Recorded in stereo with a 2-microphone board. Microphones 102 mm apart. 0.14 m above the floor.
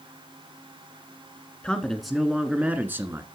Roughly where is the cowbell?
I don't hear a cowbell.